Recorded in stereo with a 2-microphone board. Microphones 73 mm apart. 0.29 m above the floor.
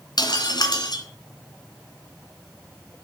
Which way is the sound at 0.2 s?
70° left (ahead or behind).